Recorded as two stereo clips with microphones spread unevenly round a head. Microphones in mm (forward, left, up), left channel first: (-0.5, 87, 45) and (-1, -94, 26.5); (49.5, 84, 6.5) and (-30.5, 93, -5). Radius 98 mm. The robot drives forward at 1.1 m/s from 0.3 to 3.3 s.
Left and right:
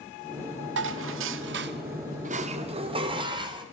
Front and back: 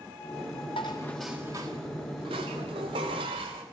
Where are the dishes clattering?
70° right, 1.1 m; by 3.6 s 155° right, 2.5 m.